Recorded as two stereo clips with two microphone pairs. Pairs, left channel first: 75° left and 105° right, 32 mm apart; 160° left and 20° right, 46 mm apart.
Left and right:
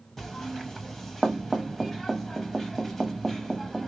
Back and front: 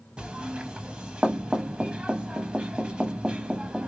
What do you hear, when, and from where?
0.2 s knocking: straight ahead, 0.6 m